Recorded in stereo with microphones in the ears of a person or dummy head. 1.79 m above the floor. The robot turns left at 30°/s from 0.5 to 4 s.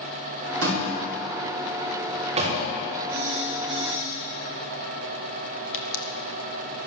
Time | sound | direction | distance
0.6 | a door slam | 80° right | 4.5 m
3.1 | a phone buzzing | 50° right (ahead or behind) | 4.5 m
5.7 | a pop | 80° left | 1.5 m